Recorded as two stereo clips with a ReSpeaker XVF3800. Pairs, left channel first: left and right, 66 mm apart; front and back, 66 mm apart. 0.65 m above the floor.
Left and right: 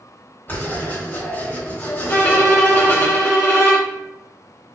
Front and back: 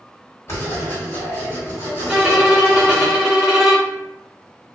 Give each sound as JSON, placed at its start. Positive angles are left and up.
{"t": 0.5, "sound": "writing", "azimuth_deg": 35, "distance_m": 2.0}
{"t": 2.1, "sound": "a violin", "azimuth_deg": 95, "distance_m": 1.4}